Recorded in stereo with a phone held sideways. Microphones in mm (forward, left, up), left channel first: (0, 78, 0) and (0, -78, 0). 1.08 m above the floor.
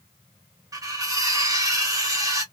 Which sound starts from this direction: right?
Cutlery clinking, at 0.7 s.